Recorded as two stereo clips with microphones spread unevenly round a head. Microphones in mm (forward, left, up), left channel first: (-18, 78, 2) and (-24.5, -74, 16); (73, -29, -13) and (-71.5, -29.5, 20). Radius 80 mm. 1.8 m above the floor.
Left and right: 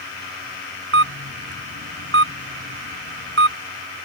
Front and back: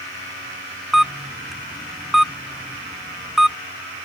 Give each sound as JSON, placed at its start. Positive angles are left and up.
{"t": 0.9, "sound": "a camera shutter", "azimuth_deg": -95}